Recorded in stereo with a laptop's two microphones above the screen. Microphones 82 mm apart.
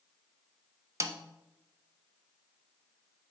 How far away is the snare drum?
About 0.8 m.